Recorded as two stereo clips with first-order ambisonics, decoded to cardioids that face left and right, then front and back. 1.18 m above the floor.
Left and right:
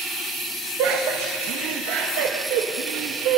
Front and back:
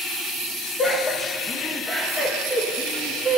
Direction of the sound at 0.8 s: 65° right.